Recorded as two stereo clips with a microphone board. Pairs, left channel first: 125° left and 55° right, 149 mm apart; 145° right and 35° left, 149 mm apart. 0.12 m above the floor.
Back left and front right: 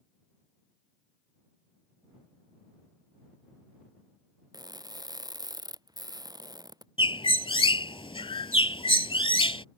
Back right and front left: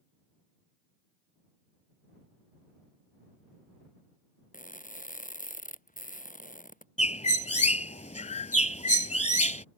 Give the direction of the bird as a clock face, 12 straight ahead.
6 o'clock.